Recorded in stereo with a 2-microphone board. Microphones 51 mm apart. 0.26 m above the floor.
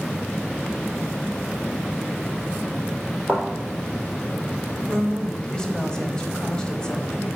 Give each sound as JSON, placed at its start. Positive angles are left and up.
{"t": 3.3, "sound": "a thud", "side_deg": 10, "distance_m": 4.0}
{"t": 4.9, "sound": "a woman speaking", "side_deg": 20, "distance_m": 1.1}